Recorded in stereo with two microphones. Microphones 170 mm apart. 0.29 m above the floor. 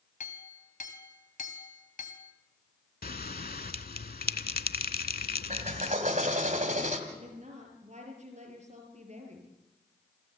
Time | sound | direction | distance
0.2 | a clink | 50° left (ahead or behind) | 1.5 m
3.0 | a bell | 65° left (ahead or behind) | 0.6 m
5.5 | a drill | 45° right (ahead or behind) | 1.9 m
7.1 | a woman speaking | 45° right (ahead or behind) | 6 m